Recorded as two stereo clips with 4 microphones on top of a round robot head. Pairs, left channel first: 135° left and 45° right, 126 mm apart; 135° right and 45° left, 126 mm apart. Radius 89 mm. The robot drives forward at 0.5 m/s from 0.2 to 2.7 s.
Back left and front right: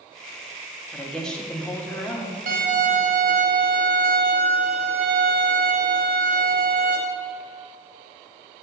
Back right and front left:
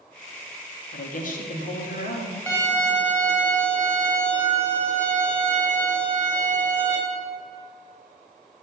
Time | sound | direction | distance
0.9 | a woman speaking | 135° right | 1.5 m
2.5 | a violin | 60° right | 2 m